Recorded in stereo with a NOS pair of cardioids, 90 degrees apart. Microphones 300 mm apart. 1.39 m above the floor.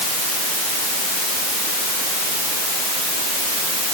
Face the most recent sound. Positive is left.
No sound to turn to.